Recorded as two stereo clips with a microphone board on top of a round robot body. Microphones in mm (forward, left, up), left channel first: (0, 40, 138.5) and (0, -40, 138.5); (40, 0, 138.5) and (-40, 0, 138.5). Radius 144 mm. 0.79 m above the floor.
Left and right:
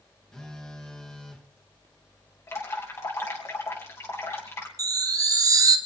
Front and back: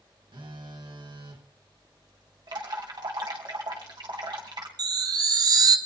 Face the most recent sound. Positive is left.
turn(degrees=-140)